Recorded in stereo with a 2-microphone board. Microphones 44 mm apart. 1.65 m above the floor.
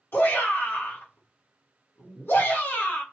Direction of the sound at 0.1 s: 55° left (ahead or behind).